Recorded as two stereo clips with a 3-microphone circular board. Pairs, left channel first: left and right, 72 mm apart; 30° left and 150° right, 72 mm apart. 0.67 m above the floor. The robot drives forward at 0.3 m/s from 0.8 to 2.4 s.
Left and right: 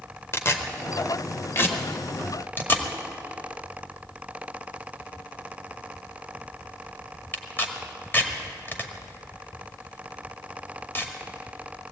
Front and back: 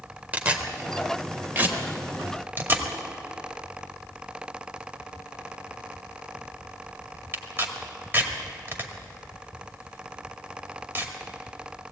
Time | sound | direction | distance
0.3 | tearing paper | 140° left | 1.7 m